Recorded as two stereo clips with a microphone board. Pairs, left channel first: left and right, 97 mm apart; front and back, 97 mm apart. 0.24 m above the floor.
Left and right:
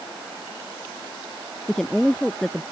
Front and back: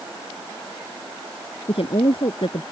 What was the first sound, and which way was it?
A woman speaking, 5° left.